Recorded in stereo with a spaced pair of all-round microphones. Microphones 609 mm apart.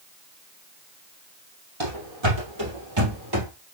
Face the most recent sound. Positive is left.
turn(degrees=-35)  # may be behind; listen again after turning